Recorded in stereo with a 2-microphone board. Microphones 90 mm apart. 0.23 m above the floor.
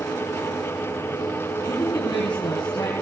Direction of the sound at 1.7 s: 55° left (ahead or behind).